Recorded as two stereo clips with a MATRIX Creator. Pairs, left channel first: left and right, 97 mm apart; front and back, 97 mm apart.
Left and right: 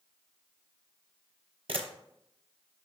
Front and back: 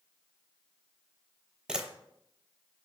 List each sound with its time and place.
1.7 s a camera shutter: 100° right, 0.5 m